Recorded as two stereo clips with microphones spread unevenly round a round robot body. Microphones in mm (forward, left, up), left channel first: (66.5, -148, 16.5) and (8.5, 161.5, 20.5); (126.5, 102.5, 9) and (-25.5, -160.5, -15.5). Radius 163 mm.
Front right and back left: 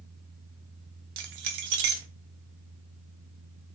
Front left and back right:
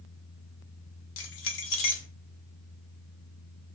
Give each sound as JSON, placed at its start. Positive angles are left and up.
{"t": 1.2, "sound": "keys jangling", "azimuth_deg": 95, "distance_m": 0.7}